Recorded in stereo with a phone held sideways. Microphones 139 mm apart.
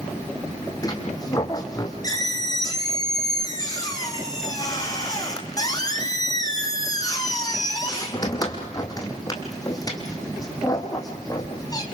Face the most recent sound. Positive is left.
turn(degrees=25)  # may be behind; listen again after turning